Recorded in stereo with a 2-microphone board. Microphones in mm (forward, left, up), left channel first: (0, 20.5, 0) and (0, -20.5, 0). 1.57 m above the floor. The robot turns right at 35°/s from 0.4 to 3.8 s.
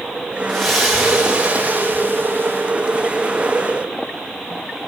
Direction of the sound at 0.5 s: 170° left.